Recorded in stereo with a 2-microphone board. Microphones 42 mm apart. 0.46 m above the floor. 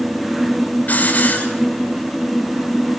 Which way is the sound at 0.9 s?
40° left (ahead or behind).